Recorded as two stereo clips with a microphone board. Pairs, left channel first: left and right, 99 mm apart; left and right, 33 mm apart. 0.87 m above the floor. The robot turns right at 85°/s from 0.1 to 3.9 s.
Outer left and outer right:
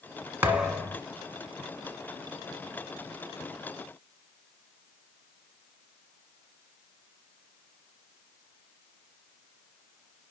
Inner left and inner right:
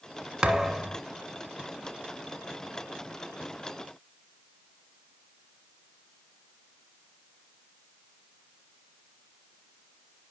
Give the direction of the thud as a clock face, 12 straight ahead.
1 o'clock.